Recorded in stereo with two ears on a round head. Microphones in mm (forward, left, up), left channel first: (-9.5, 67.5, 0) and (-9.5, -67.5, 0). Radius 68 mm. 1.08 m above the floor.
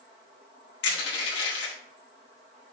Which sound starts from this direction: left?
Crushing, at 0.8 s.